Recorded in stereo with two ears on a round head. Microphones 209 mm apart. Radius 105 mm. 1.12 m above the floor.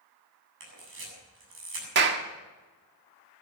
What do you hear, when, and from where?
0.6 s a camera shutter: 55° right (ahead or behind), 7.5 m
1.9 s a clap: 50° right (ahead or behind), 1.5 m